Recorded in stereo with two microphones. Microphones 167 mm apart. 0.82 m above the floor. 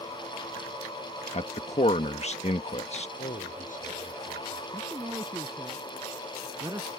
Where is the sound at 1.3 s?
40° left (ahead or behind).